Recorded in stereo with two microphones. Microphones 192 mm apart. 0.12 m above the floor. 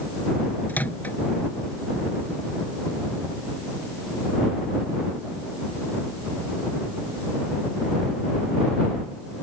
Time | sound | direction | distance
0.7 | a microwave | 10° left (ahead or behind) | ?